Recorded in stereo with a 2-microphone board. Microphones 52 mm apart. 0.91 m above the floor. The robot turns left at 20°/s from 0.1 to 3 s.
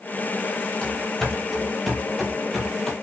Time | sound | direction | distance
0.8 | running footsteps | 15° left (ahead or behind) | 1.1 m